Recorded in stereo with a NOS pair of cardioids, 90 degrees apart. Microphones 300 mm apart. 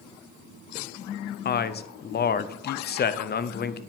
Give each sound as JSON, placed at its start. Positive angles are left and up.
{"t": 1.4, "sound": "a man speaking", "azimuth_deg": 35, "distance_m": 0.6}